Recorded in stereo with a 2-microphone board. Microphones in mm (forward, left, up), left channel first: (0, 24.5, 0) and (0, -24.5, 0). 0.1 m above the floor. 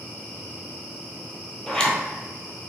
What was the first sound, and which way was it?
A zipper, 15° left (ahead or behind).